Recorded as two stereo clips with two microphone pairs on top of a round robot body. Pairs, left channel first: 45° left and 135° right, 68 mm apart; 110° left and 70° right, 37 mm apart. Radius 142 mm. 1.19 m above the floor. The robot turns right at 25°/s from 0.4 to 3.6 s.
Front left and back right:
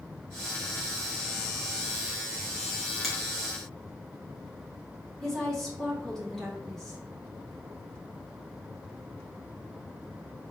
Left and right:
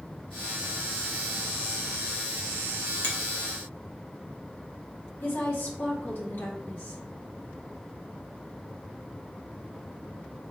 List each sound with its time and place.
3.0 s a finger snap: 130° left, 1.6 m; by 3.1 s 135° left, 1.6 m
5.2 s a woman speaking: 125° left, 1.7 m